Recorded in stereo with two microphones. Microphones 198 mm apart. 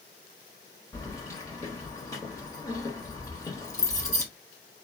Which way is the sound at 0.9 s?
15° left (ahead or behind).